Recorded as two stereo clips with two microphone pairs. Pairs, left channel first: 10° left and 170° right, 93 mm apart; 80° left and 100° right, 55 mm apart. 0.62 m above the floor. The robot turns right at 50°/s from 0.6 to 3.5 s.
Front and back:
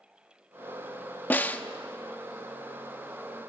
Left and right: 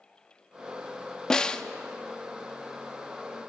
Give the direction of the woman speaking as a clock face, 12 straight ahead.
I don't hear a woman speaking.